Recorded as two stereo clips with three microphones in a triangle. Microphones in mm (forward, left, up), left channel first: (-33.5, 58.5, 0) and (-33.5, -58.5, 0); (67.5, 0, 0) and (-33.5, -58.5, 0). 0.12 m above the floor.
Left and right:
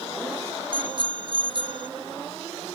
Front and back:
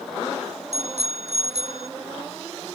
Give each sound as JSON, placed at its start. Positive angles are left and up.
{"t": 0.7, "sound": "a bicycle bell", "azimuth_deg": -135}